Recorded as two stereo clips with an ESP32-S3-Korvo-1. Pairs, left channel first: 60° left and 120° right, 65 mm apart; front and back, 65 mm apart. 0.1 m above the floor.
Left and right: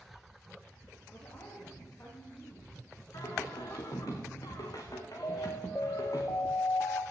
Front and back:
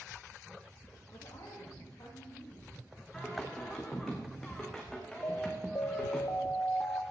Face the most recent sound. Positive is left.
turn(degrees=25)